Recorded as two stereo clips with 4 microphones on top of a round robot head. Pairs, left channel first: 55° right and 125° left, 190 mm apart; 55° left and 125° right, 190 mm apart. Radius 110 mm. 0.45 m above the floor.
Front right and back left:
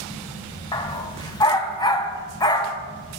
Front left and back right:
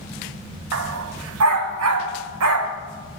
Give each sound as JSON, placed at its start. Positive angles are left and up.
{"t": 0.7, "sound": "a dog barking", "azimuth_deg": -125, "distance_m": 0.8}